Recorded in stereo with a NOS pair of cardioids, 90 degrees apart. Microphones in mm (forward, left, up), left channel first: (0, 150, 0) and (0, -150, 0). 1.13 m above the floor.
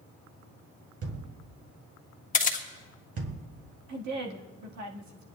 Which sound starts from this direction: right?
A woman speaking, at 3.9 s.